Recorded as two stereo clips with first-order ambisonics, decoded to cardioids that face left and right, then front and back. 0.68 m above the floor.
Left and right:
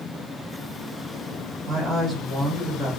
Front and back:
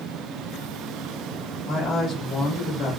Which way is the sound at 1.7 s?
35° right.